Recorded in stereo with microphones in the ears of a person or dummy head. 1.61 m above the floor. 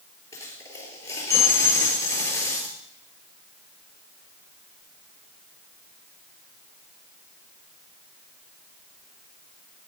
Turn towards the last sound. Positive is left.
turn(degrees=20)  # may be behind; listen again after turning